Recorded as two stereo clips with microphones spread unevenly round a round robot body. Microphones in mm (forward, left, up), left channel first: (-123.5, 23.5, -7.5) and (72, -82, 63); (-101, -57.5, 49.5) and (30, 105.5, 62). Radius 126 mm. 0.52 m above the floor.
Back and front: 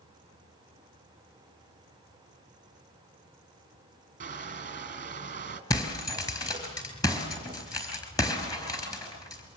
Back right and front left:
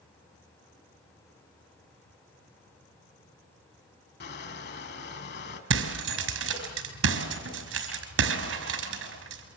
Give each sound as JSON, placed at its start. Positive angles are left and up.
{"t": 4.2, "sound": "crushing", "azimuth_deg": -85, "distance_m": 3.0}
{"t": 5.7, "sound": "breaking glass", "azimuth_deg": 75, "distance_m": 5.0}